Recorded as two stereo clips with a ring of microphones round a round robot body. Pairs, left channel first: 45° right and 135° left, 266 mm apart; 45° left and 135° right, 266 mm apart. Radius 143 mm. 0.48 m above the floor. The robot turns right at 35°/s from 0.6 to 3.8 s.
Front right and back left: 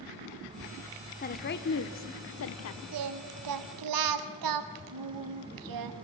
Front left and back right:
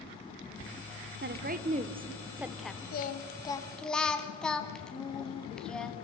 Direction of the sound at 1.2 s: 95° right.